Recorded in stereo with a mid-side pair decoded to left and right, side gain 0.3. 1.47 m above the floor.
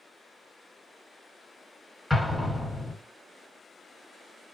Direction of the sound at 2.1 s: 5° left.